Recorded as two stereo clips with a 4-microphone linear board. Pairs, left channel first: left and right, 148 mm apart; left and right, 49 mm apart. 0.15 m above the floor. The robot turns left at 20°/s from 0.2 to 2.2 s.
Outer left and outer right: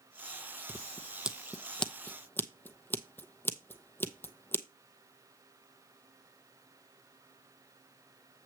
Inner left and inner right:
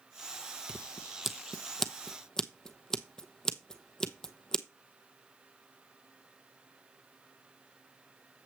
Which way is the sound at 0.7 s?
15° right (ahead or behind).